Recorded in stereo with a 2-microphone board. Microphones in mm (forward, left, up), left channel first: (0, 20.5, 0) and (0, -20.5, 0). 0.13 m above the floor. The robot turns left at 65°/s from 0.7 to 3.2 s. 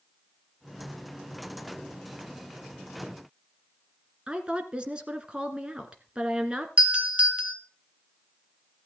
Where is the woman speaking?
25° right (ahead or behind), 1.8 m.